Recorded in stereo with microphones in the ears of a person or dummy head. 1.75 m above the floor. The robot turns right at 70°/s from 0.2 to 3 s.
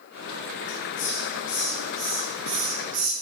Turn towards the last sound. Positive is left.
turn(degrees=-90)